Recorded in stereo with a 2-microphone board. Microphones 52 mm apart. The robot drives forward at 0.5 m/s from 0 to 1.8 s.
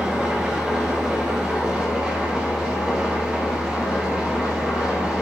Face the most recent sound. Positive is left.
turn(degrees=-15)  # may be behind; listen again after turning